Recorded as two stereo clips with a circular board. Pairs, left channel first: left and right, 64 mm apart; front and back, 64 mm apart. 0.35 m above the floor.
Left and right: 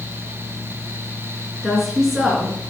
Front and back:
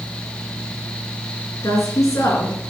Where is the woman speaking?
5° right, 4 m.